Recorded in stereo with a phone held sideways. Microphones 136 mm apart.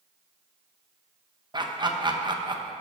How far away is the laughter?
About 0.9 m.